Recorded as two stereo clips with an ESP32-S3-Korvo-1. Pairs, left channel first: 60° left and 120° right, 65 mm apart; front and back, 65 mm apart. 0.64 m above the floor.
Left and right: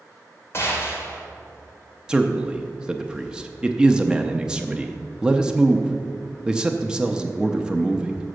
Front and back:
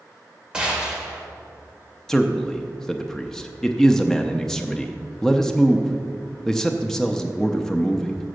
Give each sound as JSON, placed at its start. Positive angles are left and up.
{"t": 0.5, "sound": "a gunshot", "azimuth_deg": 105, "distance_m": 1.9}
{"t": 2.1, "sound": "a man speaking", "azimuth_deg": -65, "distance_m": 0.5}